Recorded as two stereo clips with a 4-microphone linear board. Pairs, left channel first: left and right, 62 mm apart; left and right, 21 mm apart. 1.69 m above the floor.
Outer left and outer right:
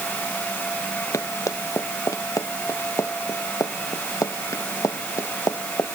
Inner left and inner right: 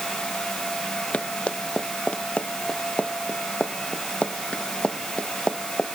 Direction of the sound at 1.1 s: 80° left.